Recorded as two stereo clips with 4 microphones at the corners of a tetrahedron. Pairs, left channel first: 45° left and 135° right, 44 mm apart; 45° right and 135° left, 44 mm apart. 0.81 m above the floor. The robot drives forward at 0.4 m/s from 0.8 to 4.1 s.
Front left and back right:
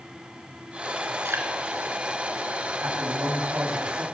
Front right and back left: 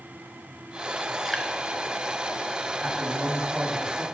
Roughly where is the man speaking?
Behind right.